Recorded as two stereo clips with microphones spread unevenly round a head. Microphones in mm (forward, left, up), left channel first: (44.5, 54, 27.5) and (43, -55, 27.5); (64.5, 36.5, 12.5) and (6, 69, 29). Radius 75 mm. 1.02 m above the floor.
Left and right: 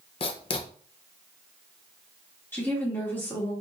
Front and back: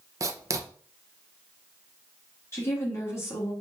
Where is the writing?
110° left, 0.8 m.